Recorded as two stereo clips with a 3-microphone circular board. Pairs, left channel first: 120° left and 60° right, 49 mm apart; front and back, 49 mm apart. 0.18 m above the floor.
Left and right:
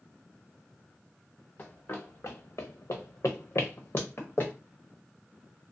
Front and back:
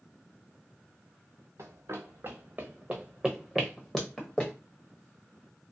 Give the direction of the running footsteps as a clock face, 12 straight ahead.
6 o'clock.